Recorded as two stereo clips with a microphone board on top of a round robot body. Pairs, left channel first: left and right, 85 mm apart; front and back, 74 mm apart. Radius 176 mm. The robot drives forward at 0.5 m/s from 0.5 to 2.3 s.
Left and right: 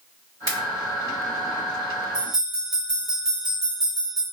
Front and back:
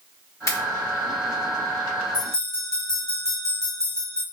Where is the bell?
45° right, 1.2 m; by 4.2 s 50° right, 1.2 m.